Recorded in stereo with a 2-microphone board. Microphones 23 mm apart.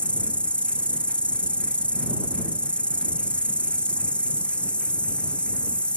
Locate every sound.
0.0 s an insect: 75° left (ahead or behind)